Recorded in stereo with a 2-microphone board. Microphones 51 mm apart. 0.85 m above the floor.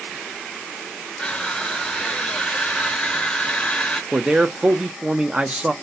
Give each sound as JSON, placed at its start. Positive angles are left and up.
{"t": 1.2, "sound": "crushing", "side_deg": 20, "distance_m": 0.7}
{"t": 4.1, "sound": "a man speaking", "side_deg": -20, "distance_m": 0.7}